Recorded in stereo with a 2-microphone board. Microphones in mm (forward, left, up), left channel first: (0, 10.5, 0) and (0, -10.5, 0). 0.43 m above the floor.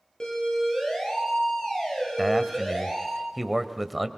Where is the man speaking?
5° right (ahead or behind), 1.5 m.